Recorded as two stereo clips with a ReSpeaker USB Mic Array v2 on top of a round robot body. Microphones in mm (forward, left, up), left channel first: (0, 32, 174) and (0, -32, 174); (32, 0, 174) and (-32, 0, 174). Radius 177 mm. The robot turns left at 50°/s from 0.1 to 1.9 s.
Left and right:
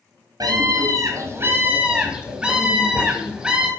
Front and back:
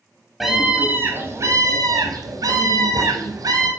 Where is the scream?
90° right, 1.2 m; by 3.7 s 165° right, 1.2 m.